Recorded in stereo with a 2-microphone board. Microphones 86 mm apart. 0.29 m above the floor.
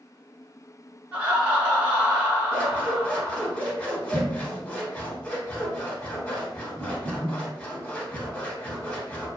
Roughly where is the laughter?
Centre.